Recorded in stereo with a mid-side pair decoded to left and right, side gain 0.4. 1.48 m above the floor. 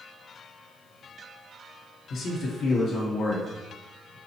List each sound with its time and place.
2.1 s a man speaking: 60° left, 1.0 m